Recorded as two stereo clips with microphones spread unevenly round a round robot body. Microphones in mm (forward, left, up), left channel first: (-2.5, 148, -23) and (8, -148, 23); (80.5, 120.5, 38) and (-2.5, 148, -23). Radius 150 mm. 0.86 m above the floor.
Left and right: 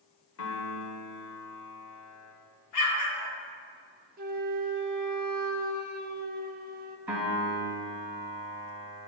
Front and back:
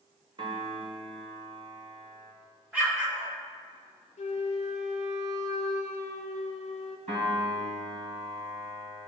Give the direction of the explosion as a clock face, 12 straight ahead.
9 o'clock.